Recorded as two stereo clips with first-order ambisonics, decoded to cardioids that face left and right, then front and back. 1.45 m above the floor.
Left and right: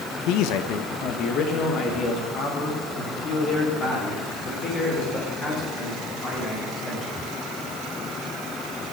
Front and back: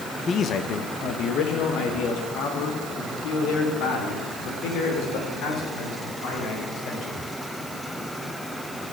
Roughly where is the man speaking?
Left.